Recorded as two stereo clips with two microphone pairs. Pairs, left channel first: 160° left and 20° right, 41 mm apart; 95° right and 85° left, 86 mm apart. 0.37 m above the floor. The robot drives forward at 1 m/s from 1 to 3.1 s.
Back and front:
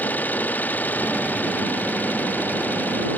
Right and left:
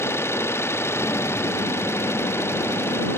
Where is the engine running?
155° right; by 3.2 s 160° right.